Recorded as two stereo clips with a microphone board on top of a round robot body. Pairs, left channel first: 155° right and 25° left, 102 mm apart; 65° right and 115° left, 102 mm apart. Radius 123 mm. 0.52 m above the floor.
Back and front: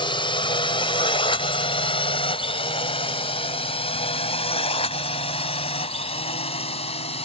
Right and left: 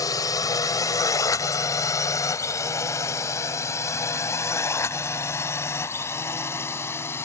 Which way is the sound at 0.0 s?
120° right.